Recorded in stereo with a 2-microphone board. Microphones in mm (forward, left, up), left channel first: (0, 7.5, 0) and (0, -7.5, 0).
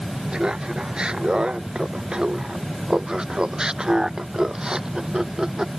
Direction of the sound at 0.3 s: 70° right (ahead or behind).